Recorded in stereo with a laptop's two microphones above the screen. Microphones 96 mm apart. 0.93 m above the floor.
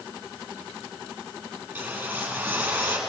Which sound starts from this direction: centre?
A whoosh, at 1.7 s.